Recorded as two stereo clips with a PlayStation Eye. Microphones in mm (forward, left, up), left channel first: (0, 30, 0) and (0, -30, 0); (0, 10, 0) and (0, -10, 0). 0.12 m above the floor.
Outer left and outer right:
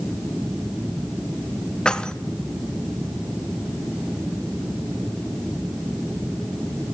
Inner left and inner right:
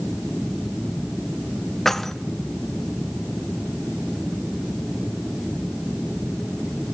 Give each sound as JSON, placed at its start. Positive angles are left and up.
{"t": 1.9, "sound": "keys jangling", "side_deg": 15, "distance_m": 0.8}